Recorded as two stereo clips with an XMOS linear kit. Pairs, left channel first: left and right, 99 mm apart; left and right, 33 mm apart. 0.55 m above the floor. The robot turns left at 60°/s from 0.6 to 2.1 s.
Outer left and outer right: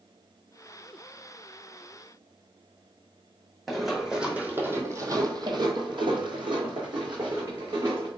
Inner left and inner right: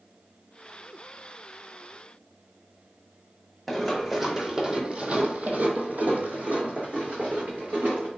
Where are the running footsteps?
Centre (ahead or behind), 1.1 m; by 8.1 s 45° right (ahead or behind), 1.9 m.